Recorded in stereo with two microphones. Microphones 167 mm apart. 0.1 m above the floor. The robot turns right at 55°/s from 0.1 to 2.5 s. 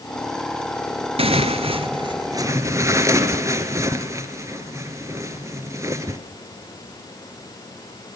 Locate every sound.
1.2 s tearing paper: 105° right, 1.5 m; by 6.2 s 30° right, 1.5 m